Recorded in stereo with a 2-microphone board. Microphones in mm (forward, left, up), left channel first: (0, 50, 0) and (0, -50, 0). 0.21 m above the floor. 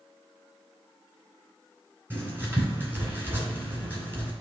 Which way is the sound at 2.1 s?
20° right (ahead or behind).